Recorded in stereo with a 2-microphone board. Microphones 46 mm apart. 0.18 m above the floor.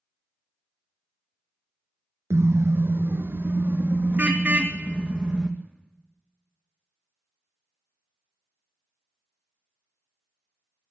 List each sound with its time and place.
2.3 s a car horn: 85° right, 2.5 m; by 5.5 s 20° right (ahead or behind), 4 m